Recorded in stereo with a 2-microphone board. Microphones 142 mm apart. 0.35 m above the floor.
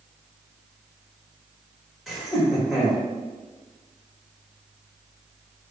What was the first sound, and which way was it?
Laughter, centre (ahead or behind).